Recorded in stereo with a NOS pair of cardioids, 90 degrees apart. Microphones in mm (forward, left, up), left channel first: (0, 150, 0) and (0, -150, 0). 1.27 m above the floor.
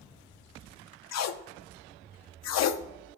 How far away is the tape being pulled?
About 0.6 m.